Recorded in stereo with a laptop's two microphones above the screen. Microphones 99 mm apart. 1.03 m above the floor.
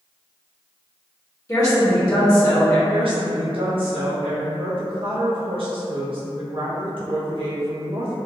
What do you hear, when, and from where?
1.5 s a woman speaking: 35° left (ahead or behind), 1.1 m
2.9 s a woman speaking: 60° right (ahead or behind), 0.8 m